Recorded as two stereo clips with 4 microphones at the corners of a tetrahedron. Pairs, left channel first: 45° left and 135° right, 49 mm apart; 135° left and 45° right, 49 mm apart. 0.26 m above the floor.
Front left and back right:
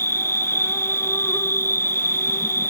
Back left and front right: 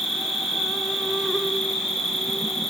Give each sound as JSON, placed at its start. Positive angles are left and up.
{"t": 0.0, "sound": "an insect", "azimuth_deg": 50, "distance_m": 3.0}